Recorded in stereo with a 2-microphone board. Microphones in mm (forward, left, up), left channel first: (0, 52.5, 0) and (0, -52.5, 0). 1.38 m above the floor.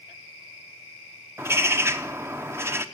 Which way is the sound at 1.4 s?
25° right (ahead or behind).